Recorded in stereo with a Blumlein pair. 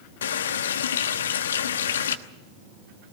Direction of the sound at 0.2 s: 65° left.